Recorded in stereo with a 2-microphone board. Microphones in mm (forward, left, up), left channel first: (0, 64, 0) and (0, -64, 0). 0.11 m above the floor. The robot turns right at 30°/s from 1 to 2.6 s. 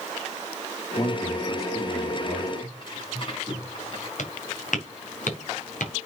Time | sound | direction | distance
1.0 | a man speaking | 105° left | 3 m
2.6 | tearing paper | 40° left (ahead or behind) | 6 m
4.2 | footsteps | 70° left (ahead or behind) | 3.5 m